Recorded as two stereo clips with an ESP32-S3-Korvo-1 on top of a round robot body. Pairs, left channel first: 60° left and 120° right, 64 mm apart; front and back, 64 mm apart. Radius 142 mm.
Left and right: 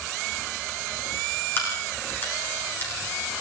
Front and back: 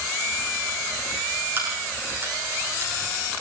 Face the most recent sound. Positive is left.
turn(degrees=120)